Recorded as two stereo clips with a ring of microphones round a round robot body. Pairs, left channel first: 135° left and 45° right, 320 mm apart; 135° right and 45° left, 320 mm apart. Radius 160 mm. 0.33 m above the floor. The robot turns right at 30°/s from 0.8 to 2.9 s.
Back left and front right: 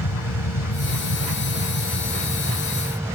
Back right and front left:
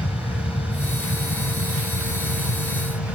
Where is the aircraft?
160° left; by 3.1 s 140° right.